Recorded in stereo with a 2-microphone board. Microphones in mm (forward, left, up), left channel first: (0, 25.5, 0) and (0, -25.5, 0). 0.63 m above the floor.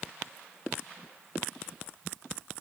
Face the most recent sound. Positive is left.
No sound to turn to.